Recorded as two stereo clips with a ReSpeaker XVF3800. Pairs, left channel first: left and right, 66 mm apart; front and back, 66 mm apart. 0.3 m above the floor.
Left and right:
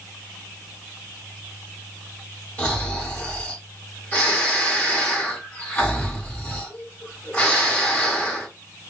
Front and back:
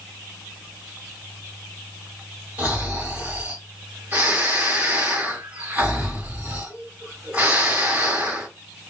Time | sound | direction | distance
2.6 | snoring | 135° left | 1.5 m